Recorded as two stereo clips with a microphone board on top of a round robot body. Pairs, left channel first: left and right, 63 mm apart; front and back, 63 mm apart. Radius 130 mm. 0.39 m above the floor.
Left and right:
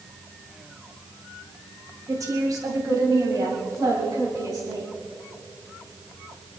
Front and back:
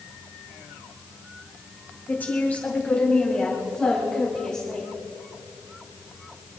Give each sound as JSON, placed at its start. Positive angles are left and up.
{"t": 2.1, "sound": "a woman speaking", "azimuth_deg": -60, "distance_m": 3.0}